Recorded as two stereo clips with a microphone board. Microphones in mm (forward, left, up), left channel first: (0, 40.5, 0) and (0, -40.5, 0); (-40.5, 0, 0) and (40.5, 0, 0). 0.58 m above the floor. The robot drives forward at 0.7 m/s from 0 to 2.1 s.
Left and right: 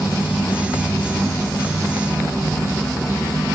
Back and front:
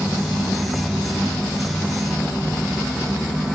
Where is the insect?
55° left, 2 m; by 3.5 s 110° left, 1.9 m.